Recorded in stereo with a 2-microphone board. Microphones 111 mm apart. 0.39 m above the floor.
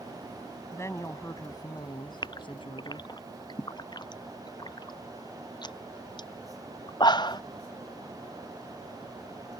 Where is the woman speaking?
25° left (ahead or behind); by 3.1 s 60° left (ahead or behind).